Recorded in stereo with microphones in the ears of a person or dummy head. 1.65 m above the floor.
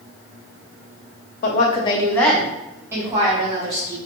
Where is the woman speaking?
50° left (ahead or behind), 0.6 m; by 4.0 s 35° right (ahead or behind), 1.4 m.